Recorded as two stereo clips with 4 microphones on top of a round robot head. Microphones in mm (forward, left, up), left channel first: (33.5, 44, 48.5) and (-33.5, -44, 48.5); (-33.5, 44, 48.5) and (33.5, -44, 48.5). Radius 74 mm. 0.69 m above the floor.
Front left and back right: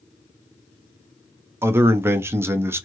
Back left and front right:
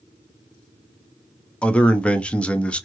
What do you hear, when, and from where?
1.6 s a man speaking: 165° right, 0.6 m